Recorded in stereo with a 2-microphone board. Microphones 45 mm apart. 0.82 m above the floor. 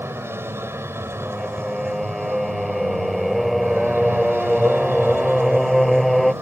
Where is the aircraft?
65° right (ahead or behind); by 6.4 s 60° right (ahead or behind).